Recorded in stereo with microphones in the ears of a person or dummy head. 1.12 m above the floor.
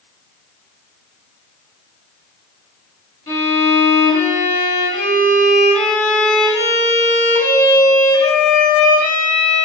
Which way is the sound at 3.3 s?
15° left (ahead or behind).